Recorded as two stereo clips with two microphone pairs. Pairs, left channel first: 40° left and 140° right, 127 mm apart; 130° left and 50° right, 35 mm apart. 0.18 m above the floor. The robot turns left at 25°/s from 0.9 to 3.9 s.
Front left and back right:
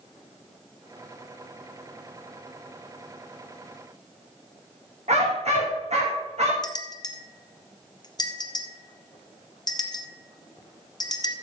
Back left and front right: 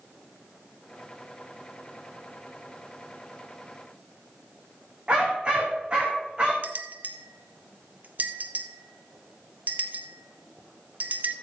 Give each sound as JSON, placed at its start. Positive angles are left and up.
{"t": 5.1, "sound": "a dog barking", "azimuth_deg": -115, "distance_m": 4.0}
{"t": 6.6, "sound": "a bell", "azimuth_deg": -15, "distance_m": 1.0}